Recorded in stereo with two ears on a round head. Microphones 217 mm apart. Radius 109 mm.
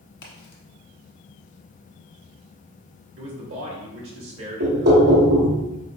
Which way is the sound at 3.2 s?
55° right (ahead or behind).